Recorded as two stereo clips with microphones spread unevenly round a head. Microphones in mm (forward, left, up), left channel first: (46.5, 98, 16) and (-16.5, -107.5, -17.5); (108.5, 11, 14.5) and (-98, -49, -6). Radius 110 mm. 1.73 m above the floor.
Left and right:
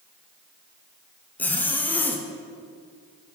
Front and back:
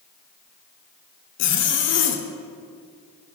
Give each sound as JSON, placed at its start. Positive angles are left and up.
{"t": 1.4, "sound": "a zipper", "azimuth_deg": -5, "distance_m": 0.6}